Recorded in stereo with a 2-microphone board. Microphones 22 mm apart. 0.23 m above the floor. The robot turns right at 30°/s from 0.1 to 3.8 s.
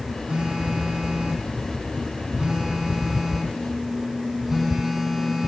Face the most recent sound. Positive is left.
turn(degrees=-15)